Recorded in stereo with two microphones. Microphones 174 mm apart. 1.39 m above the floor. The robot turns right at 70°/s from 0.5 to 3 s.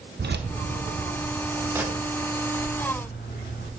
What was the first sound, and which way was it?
Keys jangling, 70° right (ahead or behind).